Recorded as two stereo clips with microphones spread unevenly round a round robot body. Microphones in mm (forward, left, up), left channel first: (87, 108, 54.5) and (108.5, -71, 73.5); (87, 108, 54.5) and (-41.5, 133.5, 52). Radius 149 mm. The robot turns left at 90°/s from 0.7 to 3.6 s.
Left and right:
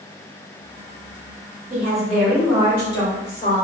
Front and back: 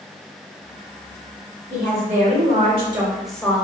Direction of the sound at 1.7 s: 135° right.